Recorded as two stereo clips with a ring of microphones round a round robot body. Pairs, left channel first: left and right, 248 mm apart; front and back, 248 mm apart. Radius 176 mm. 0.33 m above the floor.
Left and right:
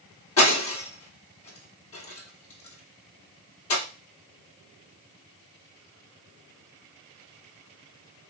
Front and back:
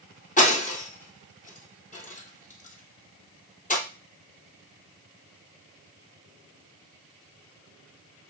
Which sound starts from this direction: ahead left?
Breaking glass, at 0.4 s.